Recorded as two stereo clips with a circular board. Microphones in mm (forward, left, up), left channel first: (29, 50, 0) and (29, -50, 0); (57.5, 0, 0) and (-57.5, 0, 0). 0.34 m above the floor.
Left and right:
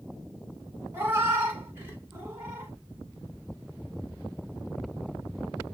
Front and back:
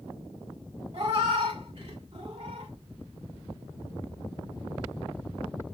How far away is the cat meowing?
About 1.1 m.